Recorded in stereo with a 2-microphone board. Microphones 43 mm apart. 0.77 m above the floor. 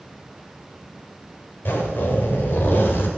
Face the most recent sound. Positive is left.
turn(degrees=55)  # may be behind; listen again after turning